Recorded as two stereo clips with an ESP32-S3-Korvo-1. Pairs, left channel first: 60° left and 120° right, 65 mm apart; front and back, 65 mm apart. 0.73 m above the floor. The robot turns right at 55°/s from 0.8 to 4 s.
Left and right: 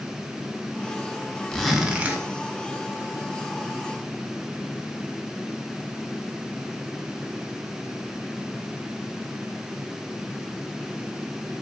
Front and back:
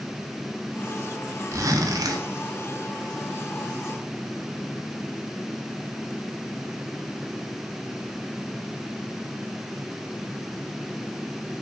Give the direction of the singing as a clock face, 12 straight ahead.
I don't hear singing.